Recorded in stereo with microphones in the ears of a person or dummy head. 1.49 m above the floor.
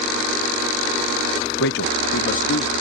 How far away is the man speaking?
About 0.5 m.